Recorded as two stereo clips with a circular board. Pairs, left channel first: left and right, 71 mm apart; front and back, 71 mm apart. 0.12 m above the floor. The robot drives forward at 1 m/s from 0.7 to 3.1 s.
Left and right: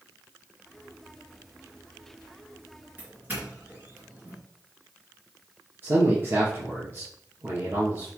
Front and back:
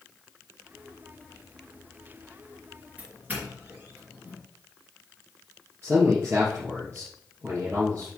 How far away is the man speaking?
About 2.5 m.